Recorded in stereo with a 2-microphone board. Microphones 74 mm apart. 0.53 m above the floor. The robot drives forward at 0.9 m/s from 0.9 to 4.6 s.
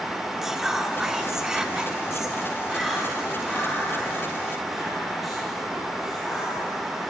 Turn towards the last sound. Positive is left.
turn(degrees=0)  # may be behind; listen again after turning